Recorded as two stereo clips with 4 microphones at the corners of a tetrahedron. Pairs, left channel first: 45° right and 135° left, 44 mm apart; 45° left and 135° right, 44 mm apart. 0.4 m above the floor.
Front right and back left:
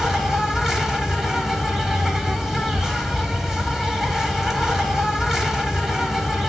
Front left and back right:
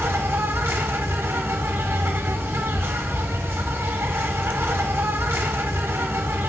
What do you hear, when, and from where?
0.0 s an insect: 145° right, 0.7 m